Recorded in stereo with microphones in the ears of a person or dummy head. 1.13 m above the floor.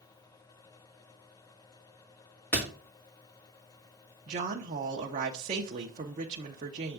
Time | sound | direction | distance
2.5 | a door slam | 10° left (ahead or behind) | 1.9 m
4.3 | a woman speaking | 40° right (ahead or behind) | 0.7 m